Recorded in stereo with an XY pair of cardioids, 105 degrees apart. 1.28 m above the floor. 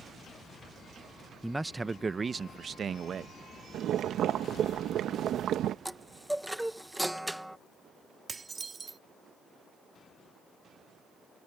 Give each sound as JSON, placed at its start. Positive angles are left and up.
{"t": 1.4, "sound": "a man speaking", "azimuth_deg": -5}
{"t": 3.7, "sound": "boiling", "azimuth_deg": -70}
{"t": 5.8, "sound": "a chime", "azimuth_deg": -5}
{"t": 8.3, "sound": "dishes clattering", "azimuth_deg": -35}